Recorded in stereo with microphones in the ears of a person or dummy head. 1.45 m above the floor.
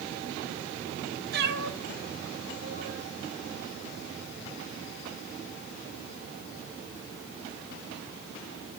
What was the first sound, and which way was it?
A cat meowing, 60° right (ahead or behind).